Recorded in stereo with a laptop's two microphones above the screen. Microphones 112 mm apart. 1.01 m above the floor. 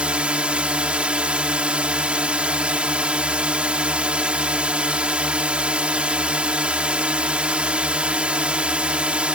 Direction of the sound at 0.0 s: 10° right (ahead or behind).